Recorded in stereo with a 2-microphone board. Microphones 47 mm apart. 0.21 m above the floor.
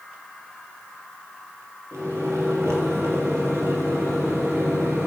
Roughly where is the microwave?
Right.